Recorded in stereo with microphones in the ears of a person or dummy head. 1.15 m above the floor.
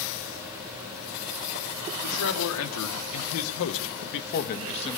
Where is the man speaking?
80° left, 2.5 m; by 5.0 s 20° left (ahead or behind), 1.2 m.